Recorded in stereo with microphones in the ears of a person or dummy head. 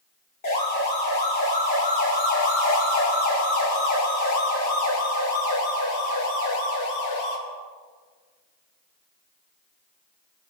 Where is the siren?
40° left (ahead or behind), 5 m; by 7.4 s 55° left (ahead or behind), 4.5 m.